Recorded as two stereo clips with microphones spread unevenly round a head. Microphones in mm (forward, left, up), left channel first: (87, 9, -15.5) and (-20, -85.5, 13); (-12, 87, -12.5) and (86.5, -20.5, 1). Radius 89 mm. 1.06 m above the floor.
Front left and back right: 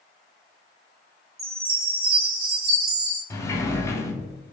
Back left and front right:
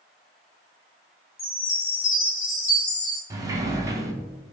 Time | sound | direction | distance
1.4 | a chime | 175° right | 1.0 m
3.3 | a sliding door | 30° right | 0.6 m